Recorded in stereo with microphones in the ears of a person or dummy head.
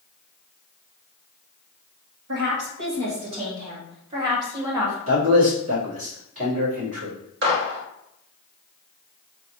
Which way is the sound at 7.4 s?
55° right (ahead or behind).